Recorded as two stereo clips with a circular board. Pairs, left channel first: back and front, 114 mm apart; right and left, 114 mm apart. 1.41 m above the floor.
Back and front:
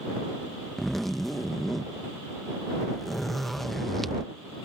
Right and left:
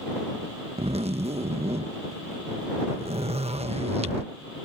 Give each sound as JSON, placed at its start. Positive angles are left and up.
{"t": 0.8, "sound": "a zipper", "azimuth_deg": 90}